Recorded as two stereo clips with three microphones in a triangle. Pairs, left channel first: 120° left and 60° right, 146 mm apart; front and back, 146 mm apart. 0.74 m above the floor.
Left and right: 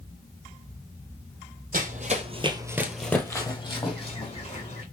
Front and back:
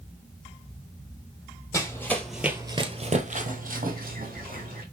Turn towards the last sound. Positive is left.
turn(degrees=160)